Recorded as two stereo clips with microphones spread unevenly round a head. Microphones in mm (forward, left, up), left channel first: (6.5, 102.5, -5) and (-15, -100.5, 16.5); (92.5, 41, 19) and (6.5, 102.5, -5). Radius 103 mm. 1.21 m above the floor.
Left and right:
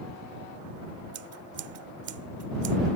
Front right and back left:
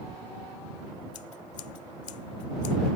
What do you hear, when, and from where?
1.1 s scissors: 60° right